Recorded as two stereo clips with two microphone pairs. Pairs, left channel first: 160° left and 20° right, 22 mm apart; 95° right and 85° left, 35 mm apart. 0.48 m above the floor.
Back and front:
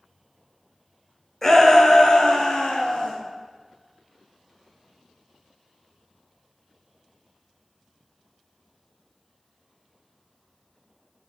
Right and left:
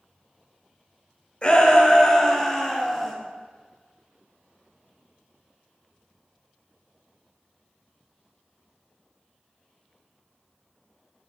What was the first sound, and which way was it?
A shout, 145° right.